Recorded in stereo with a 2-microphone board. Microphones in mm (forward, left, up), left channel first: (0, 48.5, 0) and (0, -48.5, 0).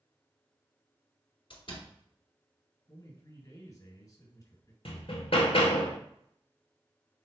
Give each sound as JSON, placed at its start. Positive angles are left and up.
{"t": 1.5, "sound": "a door slam", "side_deg": 65, "distance_m": 1.7}
{"t": 2.9, "sound": "a man speaking", "side_deg": 35, "distance_m": 2.5}
{"t": 4.8, "sound": "hammering", "side_deg": 70, "distance_m": 0.9}